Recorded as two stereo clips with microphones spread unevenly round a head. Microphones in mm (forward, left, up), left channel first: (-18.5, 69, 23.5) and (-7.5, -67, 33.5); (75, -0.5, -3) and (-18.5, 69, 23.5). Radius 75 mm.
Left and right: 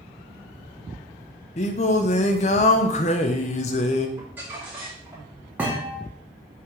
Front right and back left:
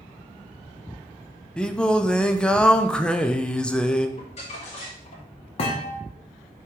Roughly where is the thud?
Ahead.